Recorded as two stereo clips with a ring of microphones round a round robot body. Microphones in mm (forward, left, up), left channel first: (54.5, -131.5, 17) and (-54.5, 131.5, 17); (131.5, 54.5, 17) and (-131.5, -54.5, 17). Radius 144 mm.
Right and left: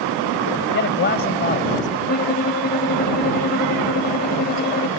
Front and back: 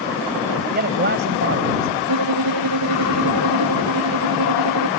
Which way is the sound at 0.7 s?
110° right.